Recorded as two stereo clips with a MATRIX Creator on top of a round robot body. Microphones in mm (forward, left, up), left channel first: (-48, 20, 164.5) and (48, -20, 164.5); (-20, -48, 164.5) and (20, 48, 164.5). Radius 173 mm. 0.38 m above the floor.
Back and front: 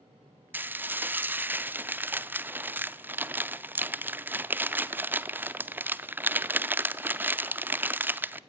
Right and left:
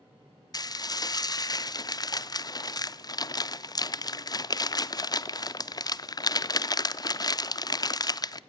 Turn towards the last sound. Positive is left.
turn(degrees=-85)